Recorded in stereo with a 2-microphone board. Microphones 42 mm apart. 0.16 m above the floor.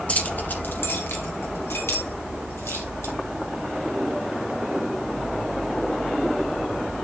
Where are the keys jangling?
35° left (ahead or behind), 1.2 m; by 3.1 s 75° left (ahead or behind), 4 m.